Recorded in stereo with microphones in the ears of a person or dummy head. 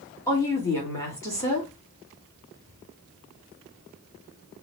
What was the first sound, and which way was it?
A woman speaking, 15° left (ahead or behind).